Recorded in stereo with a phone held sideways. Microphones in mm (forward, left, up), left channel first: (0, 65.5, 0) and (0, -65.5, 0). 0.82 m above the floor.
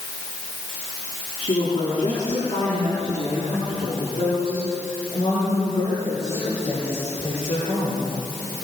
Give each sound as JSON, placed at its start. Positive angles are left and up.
{"t": 1.4, "sound": "a woman speaking", "side_deg": 55, "distance_m": 8.5}